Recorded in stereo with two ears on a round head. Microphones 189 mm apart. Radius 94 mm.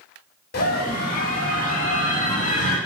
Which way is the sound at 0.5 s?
50° left (ahead or behind).